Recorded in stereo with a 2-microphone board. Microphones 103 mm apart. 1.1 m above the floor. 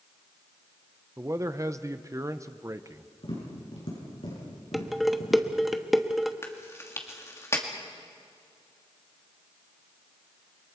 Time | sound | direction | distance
1.2 | a man speaking | 30° right (ahead or behind) | 0.8 m
3.2 | tapping | 65° left (ahead or behind) | 7.5 m
4.7 | dishes clattering | centre (ahead or behind) | 1.0 m
6.4 | chewing | 25° left (ahead or behind) | 2 m